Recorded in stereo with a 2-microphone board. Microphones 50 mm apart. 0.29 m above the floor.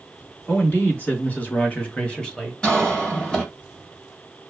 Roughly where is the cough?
Centre.